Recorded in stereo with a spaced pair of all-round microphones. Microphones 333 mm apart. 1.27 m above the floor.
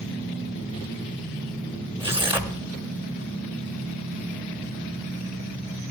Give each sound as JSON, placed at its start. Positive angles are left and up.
{"t": 2.0, "sound": "tearing paper", "side_deg": -15, "distance_m": 1.2}